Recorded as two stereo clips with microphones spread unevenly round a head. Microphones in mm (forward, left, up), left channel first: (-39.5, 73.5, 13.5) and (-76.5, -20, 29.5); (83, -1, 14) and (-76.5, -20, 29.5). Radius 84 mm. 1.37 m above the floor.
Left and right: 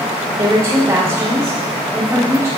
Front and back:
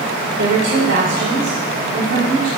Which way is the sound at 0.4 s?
165° right.